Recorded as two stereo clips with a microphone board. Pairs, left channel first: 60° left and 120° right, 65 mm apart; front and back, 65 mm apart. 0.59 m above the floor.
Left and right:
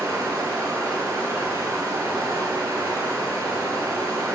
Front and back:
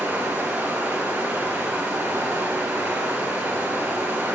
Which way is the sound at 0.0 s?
125° right.